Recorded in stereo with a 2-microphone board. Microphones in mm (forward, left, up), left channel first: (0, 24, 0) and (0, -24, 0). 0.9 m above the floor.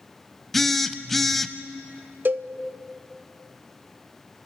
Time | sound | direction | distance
0.5 | a phone buzzing | 5° left (ahead or behind) | 0.7 m
2.2 | a cowbell | 45° right (ahead or behind) | 0.6 m